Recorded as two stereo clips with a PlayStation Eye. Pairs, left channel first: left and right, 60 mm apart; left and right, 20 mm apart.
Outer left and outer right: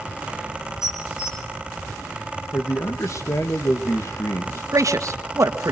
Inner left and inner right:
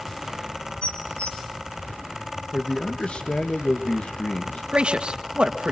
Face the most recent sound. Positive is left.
turn(degrees=-60)  # may be behind; listen again after turning